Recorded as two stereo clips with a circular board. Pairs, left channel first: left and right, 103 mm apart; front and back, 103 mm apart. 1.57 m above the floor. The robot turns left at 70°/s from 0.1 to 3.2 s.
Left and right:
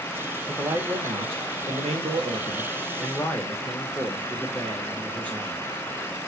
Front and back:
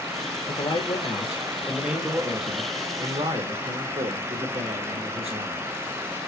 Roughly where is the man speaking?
Ahead.